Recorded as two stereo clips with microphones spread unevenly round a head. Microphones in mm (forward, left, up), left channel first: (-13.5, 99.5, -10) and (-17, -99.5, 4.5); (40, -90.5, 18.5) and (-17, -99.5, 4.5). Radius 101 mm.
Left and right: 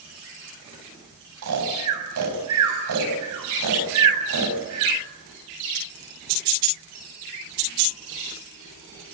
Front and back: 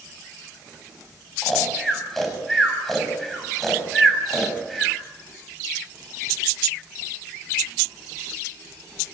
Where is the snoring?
75° right, 6.5 m.